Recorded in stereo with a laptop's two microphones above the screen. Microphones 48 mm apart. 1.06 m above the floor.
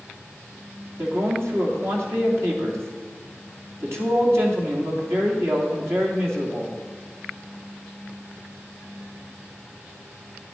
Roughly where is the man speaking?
Right.